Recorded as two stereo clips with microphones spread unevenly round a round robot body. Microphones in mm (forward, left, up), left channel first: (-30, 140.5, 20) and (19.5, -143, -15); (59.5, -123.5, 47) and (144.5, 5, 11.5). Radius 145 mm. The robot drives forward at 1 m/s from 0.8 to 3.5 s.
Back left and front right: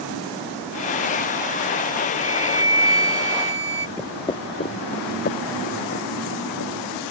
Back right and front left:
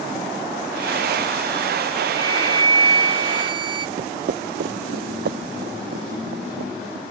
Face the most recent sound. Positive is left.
turn(degrees=50)